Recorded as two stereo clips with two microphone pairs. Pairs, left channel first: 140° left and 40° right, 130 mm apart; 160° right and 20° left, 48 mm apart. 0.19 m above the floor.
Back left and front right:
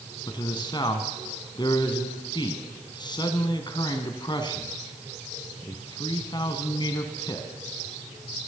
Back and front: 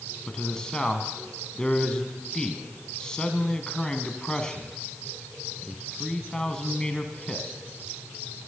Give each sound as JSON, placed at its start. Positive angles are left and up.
{"t": 0.3, "sound": "a man speaking", "azimuth_deg": 135, "distance_m": 1.4}